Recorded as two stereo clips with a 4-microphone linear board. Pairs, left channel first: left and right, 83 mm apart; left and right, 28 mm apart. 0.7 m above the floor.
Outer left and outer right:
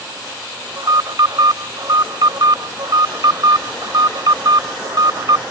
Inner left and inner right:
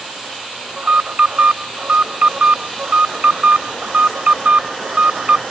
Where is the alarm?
55° right (ahead or behind).